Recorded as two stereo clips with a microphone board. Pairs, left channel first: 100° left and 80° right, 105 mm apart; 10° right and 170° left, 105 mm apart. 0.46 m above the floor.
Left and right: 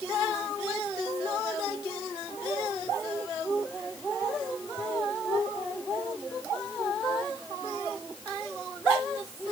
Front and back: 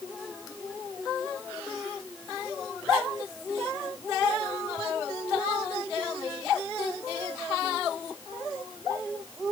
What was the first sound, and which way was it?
Only background noise.